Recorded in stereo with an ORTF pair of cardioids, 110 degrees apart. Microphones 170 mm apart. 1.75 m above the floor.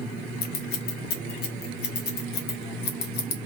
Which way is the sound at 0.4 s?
70° left.